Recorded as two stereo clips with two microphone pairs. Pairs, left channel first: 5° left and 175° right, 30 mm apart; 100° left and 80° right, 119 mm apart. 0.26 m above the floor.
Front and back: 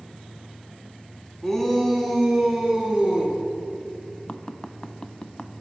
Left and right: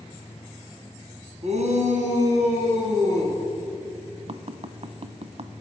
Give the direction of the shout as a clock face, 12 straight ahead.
2 o'clock.